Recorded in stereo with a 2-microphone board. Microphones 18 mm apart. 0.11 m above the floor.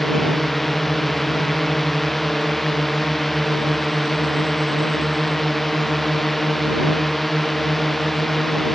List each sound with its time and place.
0.0 s a drone: 5° left (ahead or behind)